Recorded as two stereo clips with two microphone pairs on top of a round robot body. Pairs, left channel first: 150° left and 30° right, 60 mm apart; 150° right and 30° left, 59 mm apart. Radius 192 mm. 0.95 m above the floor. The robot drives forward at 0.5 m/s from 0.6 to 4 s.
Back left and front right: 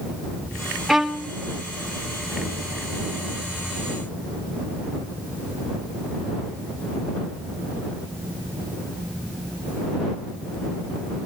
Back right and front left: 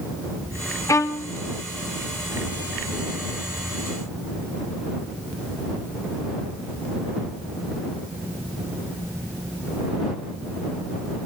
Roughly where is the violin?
Behind right.